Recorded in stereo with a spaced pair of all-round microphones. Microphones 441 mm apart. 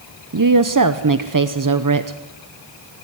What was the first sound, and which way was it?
A woman speaking, 40° right (ahead or behind).